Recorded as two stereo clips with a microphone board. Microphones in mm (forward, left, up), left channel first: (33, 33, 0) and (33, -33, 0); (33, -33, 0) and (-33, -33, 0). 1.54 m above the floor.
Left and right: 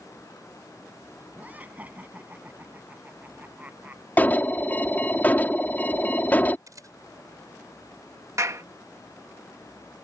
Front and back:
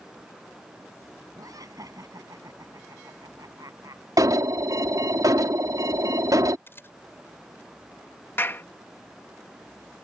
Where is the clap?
55° right.